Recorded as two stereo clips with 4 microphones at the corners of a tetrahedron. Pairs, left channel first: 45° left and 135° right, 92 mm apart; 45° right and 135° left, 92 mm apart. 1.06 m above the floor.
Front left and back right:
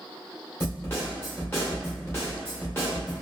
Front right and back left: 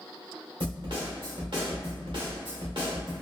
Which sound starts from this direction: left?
A snare drum, at 0.6 s.